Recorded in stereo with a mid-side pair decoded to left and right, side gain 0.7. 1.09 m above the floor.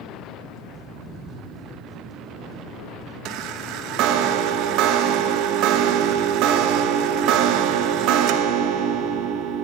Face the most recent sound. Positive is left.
turn(degrees=-60)